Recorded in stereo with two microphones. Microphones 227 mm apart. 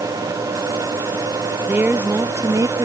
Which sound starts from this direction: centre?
A woman speaking, at 1.7 s.